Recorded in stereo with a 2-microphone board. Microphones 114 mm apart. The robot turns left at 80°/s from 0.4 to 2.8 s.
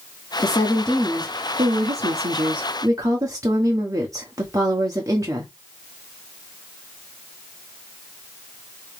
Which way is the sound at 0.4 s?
40° left.